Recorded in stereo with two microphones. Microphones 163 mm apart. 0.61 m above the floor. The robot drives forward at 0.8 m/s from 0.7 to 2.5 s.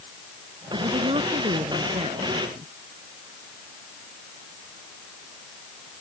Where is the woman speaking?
35° right (ahead or behind); by 2.7 s 30° right (ahead or behind).